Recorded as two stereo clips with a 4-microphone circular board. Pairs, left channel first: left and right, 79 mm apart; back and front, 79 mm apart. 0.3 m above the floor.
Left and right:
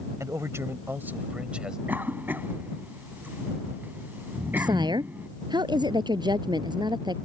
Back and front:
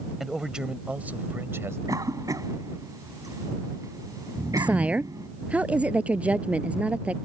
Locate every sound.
0.2 s a man speaking: 85° right; by 1.8 s 15° right
1.9 s a cough: 30° right
4.6 s a woman speaking: 70° right